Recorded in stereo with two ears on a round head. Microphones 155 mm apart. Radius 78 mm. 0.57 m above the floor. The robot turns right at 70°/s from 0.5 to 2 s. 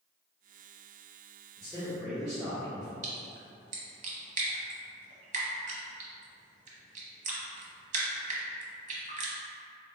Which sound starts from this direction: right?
A splash, at 3.0 s.